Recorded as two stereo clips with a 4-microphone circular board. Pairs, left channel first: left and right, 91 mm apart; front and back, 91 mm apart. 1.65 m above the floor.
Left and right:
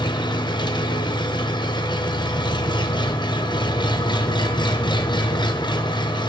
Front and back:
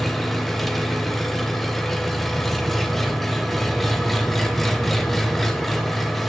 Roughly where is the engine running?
Left.